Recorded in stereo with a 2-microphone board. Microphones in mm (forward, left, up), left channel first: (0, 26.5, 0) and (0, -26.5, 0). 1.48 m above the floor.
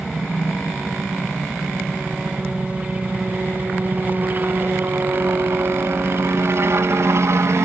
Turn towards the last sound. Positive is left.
turn(degrees=-60)  # may be behind; listen again after turning